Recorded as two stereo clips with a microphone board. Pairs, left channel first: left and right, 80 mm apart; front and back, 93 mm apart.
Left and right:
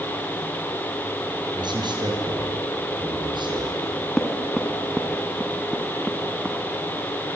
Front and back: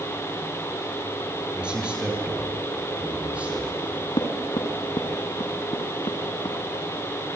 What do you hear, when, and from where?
1.6 s a man speaking: 100° right, 6.5 m; by 3.7 s 105° right, 8 m
3.8 s knocking: 5° right, 3.5 m